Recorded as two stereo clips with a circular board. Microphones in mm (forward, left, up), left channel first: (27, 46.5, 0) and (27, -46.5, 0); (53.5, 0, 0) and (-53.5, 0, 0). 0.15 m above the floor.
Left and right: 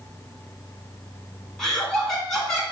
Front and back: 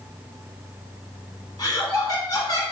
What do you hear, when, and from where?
1.6 s laughter: 5° left, 1.3 m